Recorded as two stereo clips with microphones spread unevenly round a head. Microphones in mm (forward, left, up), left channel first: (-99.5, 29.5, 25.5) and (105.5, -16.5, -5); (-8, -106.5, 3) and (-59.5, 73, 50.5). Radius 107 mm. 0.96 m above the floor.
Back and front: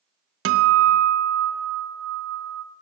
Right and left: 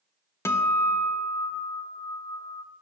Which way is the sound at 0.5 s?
5° right.